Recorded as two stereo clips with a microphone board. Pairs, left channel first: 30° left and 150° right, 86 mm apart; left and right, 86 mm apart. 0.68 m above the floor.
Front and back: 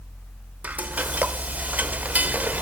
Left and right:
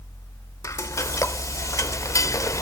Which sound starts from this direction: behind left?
Frying, at 0.6 s.